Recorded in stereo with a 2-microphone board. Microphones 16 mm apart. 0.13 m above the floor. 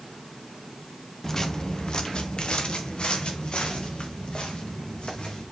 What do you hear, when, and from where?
1.2 s footsteps: 30° left (ahead or behind), 1.1 m; by 5.4 s 80° left, 5.5 m